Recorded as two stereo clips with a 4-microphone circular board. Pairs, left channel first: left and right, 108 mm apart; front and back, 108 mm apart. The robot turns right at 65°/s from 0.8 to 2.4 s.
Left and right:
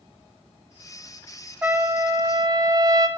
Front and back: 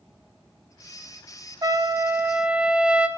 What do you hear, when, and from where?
1.6 s a trumpet: 155° right, 0.6 m; by 3.1 s 105° right, 0.6 m